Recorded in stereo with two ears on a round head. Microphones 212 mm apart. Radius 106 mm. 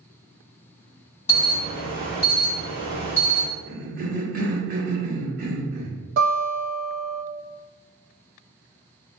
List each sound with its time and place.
1.3 s an alarm: 25° left (ahead or behind), 1.4 m
3.7 s a cough: 40° right (ahead or behind), 0.9 m
6.2 s a guitar: 45° right (ahead or behind), 1.7 m